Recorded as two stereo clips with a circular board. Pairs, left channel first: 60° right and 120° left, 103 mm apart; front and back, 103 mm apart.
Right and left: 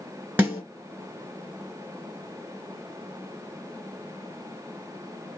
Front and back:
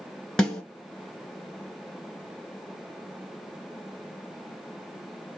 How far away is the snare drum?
About 1.7 m.